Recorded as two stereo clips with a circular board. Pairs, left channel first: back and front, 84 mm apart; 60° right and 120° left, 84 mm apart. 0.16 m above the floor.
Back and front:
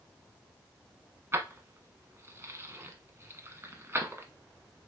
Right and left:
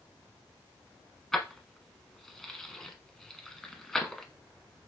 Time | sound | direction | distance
1.3 | keys jangling | 20° left | 1.0 m